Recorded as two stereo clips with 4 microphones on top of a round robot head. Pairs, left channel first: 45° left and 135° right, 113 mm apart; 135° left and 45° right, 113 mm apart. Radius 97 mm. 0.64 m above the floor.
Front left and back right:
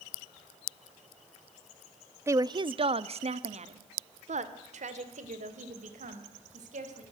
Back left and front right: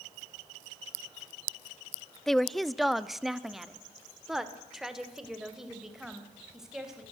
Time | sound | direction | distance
2.3 | a woman speaking | 145° right | 0.6 m